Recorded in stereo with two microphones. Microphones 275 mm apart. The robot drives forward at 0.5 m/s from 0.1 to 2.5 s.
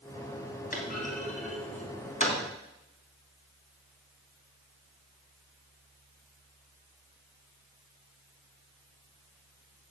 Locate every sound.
0.7 s a clunk: 30° left (ahead or behind), 3 m; by 2.4 s 25° left (ahead or behind), 4 m